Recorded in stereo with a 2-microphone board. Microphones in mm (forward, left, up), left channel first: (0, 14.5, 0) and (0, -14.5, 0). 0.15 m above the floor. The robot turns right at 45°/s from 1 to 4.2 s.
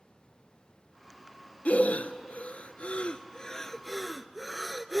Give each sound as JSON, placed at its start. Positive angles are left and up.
{"t": 1.6, "sound": "breathing", "side_deg": 60, "distance_m": 0.5}